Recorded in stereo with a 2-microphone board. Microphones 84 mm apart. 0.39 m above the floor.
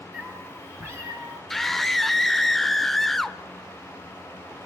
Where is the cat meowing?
20° right (ahead or behind), 4 m; by 1.4 s 40° right (ahead or behind), 4 m.